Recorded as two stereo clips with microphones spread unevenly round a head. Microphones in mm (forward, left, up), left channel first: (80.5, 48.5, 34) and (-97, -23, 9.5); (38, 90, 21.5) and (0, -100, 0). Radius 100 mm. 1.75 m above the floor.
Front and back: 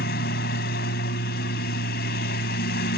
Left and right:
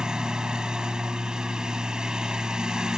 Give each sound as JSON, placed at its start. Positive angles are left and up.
{"t": 0.0, "sound": "a lawn mower", "azimuth_deg": -10}